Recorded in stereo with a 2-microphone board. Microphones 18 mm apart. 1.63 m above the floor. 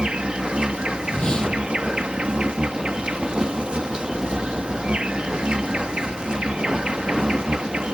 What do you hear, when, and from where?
0.0 s an insect: 70° right (ahead or behind)
1.1 s a whoosh: 50° left (ahead or behind)